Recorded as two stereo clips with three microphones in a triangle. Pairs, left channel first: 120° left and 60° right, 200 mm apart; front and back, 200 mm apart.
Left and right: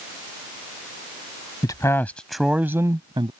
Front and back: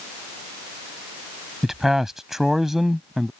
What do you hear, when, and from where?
1.6 s a man speaking: 95° left; by 3.3 s 90° right